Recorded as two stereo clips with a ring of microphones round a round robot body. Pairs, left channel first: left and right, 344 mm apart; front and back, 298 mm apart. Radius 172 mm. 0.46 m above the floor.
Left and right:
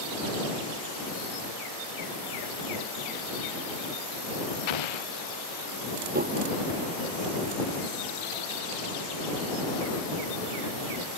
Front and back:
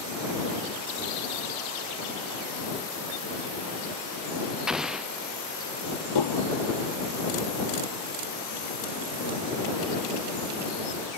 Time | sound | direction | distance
4.7 | an explosion | 90° left | ?
6.2 | dishes clattering | 25° right | ?